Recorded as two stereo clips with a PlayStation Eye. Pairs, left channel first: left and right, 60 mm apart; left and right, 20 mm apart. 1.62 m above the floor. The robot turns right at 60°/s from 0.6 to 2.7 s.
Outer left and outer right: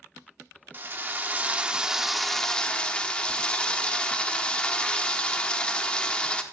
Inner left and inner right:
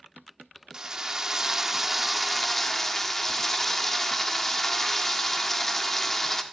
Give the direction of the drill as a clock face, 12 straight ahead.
3 o'clock.